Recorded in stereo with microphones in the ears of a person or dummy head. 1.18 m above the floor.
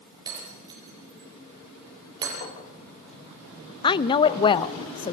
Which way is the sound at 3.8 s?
20° left (ahead or behind).